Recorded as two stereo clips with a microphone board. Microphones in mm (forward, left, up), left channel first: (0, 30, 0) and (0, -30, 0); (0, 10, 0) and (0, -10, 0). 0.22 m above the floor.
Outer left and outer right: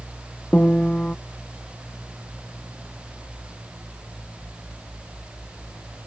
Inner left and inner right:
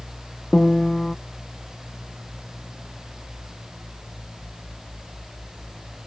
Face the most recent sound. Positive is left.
turn(degrees=20)  # may be behind; listen again after turning